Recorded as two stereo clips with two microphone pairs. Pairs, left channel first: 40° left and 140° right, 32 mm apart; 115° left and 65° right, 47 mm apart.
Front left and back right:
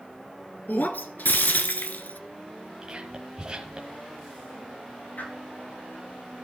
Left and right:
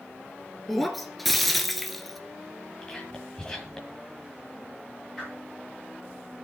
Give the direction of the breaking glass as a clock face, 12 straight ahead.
11 o'clock.